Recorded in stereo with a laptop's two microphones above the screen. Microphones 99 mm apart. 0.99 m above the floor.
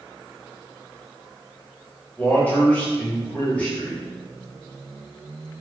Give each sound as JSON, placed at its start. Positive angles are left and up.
{"t": 2.2, "sound": "a man speaking", "side_deg": 15, "distance_m": 1.0}